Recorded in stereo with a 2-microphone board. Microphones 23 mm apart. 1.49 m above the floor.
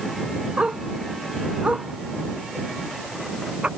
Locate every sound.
0.6 s a dog barking: 60° right (ahead or behind)